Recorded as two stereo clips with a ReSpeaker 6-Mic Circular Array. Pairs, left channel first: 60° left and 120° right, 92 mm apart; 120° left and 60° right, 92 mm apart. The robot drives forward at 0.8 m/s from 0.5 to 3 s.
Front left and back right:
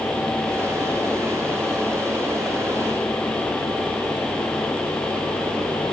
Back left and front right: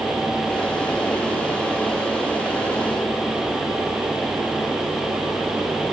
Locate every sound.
Only background noise.